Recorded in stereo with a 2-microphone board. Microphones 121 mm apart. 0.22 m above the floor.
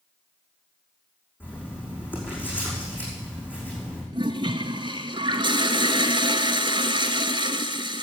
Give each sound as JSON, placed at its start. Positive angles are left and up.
{"t": 1.4, "sound": "writing", "side_deg": 15, "distance_m": 8.0}
{"t": 4.1, "sound": "a toilet flushing", "side_deg": -40, "distance_m": 0.8}